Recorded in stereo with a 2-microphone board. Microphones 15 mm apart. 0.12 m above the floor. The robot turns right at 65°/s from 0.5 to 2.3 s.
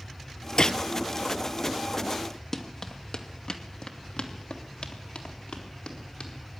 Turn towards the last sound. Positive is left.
turn(degrees=75)  # may be behind; listen again after turning